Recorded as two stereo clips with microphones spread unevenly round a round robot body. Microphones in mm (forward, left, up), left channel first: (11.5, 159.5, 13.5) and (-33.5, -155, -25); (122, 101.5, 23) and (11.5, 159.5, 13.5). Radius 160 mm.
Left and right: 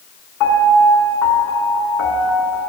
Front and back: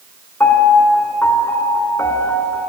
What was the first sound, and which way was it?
A piano, 45° left.